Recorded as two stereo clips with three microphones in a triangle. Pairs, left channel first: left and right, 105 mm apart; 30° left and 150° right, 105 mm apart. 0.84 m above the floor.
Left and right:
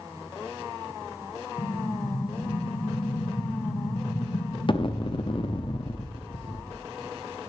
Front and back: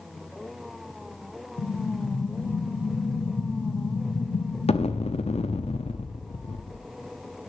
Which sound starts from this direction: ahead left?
An explosion, at 1.6 s.